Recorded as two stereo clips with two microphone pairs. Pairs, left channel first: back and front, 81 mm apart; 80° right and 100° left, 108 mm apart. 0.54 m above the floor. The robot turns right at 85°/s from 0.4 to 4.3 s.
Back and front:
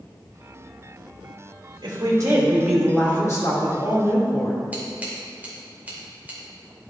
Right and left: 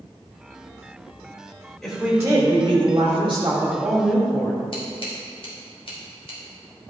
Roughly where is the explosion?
No explosion in this recording.